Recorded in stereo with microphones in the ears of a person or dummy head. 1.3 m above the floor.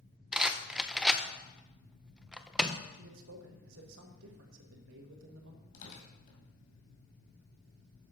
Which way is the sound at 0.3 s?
5° right (ahead or behind).